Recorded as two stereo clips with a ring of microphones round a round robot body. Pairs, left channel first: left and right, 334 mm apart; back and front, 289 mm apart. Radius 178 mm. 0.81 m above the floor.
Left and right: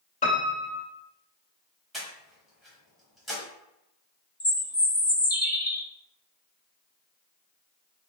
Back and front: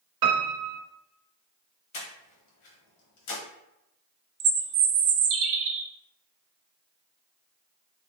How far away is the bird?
About 0.6 m.